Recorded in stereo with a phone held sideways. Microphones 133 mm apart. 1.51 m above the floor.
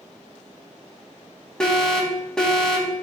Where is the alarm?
5° left (ahead or behind), 3 m.